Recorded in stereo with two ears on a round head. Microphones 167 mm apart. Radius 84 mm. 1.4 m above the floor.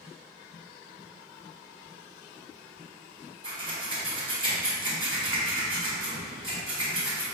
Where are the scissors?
25° right (ahead or behind), 1.0 m.